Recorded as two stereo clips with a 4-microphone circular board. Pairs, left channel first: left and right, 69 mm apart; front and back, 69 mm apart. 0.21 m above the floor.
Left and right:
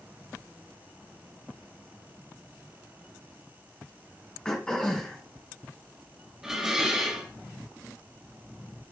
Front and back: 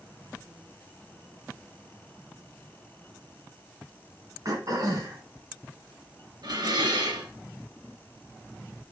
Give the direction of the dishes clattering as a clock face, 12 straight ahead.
6 o'clock.